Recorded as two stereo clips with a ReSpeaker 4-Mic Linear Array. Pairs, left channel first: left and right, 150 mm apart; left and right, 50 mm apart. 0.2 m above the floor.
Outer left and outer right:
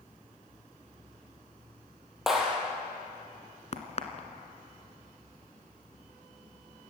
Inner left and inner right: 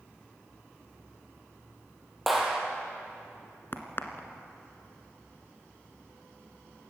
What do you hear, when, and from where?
2.3 s a clap: centre (ahead or behind), 4.5 m
3.7 s a crack: 45° left (ahead or behind), 1.8 m